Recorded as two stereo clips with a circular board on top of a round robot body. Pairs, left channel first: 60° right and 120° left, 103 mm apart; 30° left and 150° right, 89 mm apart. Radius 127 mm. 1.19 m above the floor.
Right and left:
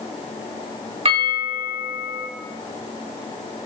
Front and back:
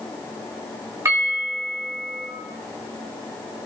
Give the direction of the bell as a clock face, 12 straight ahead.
7 o'clock.